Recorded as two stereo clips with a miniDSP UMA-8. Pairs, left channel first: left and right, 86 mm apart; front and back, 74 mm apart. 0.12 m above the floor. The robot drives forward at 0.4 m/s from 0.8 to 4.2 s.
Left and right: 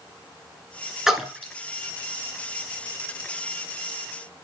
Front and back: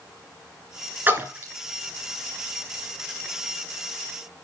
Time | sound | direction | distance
1.1 | a splash | 170° right | 1.6 m